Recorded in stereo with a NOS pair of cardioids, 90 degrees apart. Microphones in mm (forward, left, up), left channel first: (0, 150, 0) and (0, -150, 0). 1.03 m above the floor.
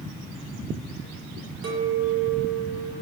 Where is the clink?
50° right, 0.8 m.